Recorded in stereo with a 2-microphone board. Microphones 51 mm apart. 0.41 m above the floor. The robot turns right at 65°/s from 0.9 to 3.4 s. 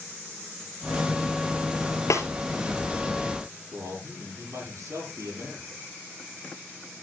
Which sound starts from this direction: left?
A snare drum, at 2.1 s.